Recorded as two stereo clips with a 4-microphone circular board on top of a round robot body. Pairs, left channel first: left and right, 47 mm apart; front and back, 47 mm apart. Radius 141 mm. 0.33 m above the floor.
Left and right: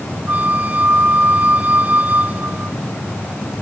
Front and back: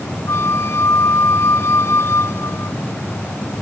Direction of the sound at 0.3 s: 35° right.